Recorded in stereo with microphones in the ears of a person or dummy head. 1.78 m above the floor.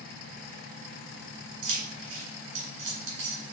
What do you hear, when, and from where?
1.6 s keys jangling: 65° right (ahead or behind), 2 m